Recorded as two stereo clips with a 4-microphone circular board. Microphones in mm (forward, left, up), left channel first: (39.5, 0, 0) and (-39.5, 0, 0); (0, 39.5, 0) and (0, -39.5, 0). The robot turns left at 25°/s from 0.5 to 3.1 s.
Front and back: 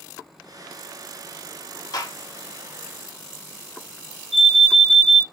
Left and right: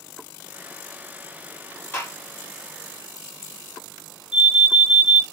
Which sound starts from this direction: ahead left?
A gunshot, at 1.9 s.